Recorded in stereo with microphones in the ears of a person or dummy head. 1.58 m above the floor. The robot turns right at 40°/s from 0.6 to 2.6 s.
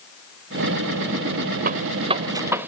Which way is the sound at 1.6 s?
45° right (ahead or behind).